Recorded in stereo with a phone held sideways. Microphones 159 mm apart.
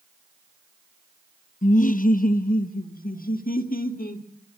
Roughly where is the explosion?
I don't hear an explosion.